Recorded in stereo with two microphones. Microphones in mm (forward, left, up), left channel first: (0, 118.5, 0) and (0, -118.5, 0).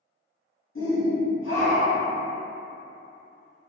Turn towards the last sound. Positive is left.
turn(degrees=60)  # may be behind; listen again after turning